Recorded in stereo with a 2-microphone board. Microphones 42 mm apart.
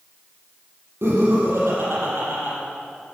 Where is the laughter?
70° right (ahead or behind), 5 m.